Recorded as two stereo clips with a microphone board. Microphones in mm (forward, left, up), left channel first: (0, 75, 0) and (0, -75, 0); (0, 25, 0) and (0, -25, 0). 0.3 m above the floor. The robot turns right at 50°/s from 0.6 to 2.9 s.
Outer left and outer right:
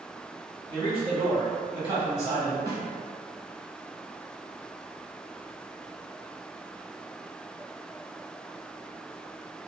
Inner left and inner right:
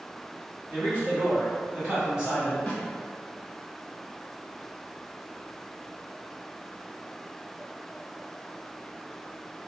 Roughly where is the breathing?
I don't hear breathing.